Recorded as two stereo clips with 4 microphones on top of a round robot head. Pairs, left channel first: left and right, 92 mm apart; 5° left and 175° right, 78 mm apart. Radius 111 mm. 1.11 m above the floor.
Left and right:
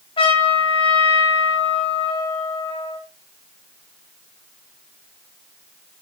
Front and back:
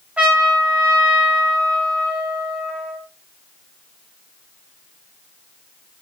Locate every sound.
0.2 s a trumpet: 110° left, 5.5 m